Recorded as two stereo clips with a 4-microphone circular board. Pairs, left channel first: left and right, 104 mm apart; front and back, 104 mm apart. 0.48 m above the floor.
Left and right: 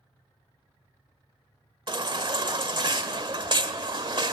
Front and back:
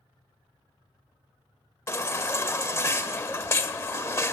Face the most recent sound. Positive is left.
turn(degrees=-60)